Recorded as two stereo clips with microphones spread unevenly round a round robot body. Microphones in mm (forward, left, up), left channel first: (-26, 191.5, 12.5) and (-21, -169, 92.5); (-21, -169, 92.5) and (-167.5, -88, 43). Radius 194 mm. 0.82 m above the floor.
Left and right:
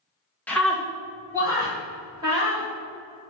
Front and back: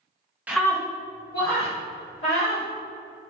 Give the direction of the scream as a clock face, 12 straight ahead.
7 o'clock.